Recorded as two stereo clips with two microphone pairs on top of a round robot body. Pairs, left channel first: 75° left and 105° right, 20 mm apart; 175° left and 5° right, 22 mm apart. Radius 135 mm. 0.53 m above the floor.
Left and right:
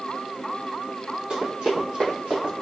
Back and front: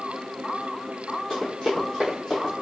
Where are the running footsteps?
115° right, 1.2 m; by 2.5 s 125° right, 2 m.